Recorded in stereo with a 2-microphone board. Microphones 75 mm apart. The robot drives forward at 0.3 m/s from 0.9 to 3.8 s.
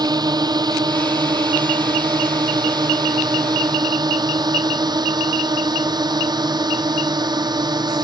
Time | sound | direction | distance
0.0 | a drone | 65° right (ahead or behind) | ?